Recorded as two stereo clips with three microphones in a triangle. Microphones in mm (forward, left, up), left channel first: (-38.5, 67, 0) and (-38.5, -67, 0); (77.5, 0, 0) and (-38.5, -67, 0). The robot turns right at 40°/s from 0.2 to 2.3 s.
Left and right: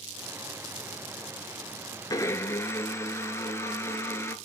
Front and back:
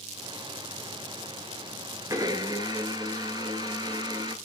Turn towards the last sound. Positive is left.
turn(degrees=160)